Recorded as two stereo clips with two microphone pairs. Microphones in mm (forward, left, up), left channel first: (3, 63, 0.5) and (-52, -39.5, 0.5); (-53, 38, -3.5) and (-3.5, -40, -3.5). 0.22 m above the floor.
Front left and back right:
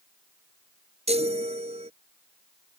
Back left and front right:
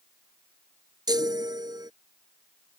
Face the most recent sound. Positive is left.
turn(degrees=-100)